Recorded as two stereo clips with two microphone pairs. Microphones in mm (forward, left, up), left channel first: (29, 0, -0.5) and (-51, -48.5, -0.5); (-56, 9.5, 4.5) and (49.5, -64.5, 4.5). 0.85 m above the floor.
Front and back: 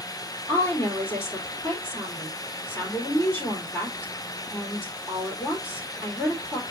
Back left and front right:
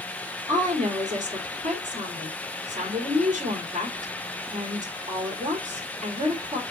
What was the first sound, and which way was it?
A woman speaking, 25° right.